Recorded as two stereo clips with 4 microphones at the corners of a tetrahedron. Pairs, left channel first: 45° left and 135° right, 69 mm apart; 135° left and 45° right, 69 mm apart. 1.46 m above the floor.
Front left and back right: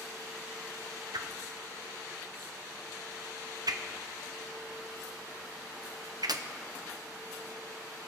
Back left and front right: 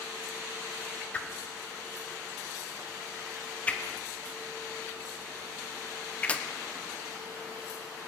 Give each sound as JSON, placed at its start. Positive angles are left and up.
{"t": 1.1, "sound": "a whoosh", "azimuth_deg": -155, "distance_m": 0.8}